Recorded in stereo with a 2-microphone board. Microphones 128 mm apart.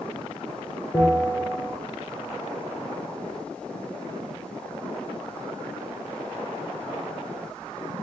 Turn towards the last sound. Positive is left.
turn(degrees=10)  # may be behind; listen again after turning